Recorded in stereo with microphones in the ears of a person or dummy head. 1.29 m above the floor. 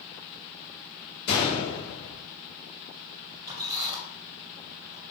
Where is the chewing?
No chewing in this recording.